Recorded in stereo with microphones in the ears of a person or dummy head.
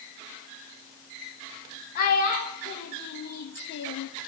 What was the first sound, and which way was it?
A child speaking, 60° left (ahead or behind).